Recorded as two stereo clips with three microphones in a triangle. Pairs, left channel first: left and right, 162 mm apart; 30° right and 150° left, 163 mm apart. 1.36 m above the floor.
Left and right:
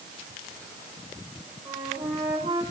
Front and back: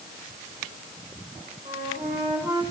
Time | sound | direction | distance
1.6 | a flute | 135° right | 4 m